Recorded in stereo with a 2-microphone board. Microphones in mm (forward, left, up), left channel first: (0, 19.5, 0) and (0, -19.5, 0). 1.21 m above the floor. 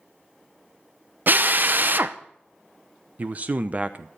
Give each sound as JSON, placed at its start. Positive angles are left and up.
{"t": 1.3, "sound": "a drill", "side_deg": -55, "distance_m": 0.7}
{"t": 3.2, "sound": "a man speaking", "side_deg": -40, "distance_m": 0.8}